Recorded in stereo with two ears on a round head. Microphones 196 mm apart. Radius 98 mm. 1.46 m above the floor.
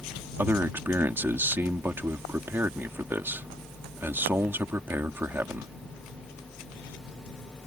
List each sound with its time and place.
0.4 s a man speaking: 10° right (ahead or behind)